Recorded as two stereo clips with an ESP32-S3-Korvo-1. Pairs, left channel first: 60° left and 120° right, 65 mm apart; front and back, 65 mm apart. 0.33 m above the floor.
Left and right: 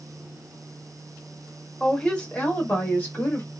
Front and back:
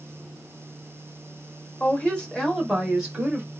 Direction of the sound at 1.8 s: 5° right.